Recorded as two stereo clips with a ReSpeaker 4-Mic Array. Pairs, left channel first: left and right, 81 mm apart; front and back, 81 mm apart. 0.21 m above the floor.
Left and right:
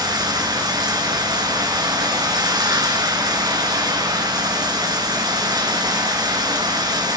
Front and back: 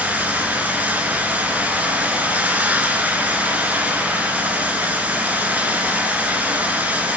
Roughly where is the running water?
Behind right.